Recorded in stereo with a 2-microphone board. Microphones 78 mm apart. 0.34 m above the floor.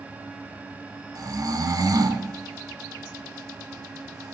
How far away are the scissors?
I don't hear scissors.